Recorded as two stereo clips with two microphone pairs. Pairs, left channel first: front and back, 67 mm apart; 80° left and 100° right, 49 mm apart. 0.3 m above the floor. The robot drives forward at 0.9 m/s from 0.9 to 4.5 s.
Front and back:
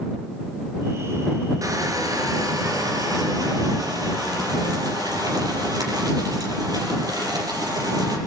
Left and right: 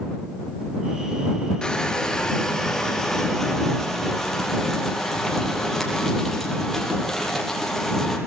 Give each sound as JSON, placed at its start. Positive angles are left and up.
{"t": 1.6, "sound": "crushing", "azimuth_deg": 150, "distance_m": 3.0}